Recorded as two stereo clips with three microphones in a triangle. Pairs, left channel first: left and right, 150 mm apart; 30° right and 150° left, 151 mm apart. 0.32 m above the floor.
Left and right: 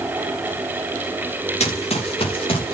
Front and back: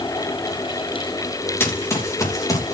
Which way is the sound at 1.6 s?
45° left.